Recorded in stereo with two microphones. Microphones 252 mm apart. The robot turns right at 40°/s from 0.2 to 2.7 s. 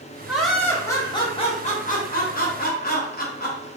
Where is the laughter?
5° right, 0.6 m; by 3.7 s 90° left, 0.6 m.